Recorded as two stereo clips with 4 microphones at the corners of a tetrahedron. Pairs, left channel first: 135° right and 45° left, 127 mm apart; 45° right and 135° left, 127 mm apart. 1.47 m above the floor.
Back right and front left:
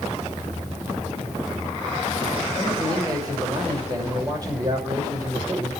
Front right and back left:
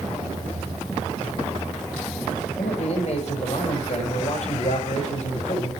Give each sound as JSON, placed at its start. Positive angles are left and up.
{"t": 2.6, "sound": "a man speaking", "azimuth_deg": -15, "distance_m": 6.0}